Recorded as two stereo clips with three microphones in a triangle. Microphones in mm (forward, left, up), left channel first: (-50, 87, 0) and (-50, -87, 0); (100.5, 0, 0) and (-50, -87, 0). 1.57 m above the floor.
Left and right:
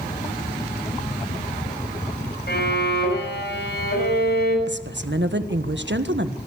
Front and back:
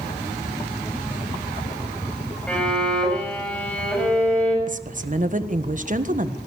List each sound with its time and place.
2.5 s a violin: 115° left, 5.5 m
4.7 s a woman speaking: 105° right, 1.5 m